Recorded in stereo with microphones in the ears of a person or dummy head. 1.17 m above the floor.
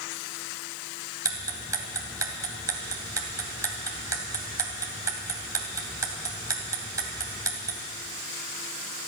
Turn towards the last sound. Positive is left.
turn(degrees=-20)  # may be behind; listen again after turning